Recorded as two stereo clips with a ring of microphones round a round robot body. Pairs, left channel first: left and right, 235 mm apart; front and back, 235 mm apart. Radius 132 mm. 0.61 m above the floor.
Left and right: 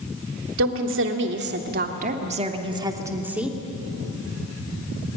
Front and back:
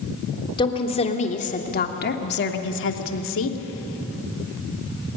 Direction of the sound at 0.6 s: 70° right.